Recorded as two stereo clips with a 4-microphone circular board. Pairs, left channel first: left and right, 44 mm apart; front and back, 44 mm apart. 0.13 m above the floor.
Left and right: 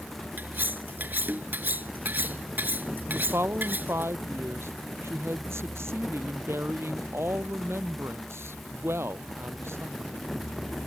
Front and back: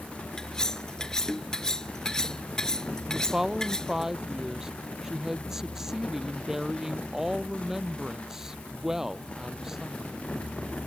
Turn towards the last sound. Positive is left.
turn(degrees=-100)